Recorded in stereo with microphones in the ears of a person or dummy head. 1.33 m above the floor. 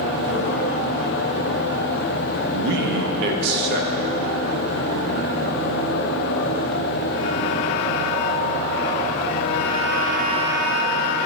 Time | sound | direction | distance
2.5 | a man speaking | 60° right (ahead or behind) | 1.1 m